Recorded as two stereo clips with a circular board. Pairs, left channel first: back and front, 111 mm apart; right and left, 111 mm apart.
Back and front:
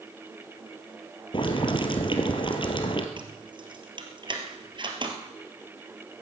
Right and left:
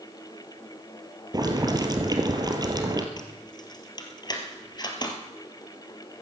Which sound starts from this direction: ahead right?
Keys jangling, at 3.2 s.